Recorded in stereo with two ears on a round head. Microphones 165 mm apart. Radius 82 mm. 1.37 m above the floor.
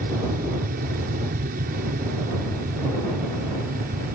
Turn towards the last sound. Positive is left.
turn(degrees=-50)  # may be behind; listen again after turning